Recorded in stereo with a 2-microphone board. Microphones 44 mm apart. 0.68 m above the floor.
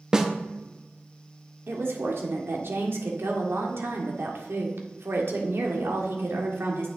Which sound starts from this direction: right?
A woman speaking, at 1.7 s.